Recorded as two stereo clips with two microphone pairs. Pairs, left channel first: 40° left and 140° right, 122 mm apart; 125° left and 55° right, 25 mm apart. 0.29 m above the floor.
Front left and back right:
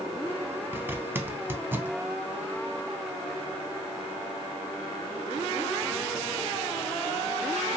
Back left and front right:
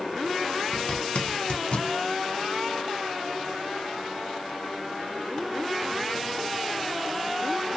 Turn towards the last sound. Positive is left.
turn(degrees=150)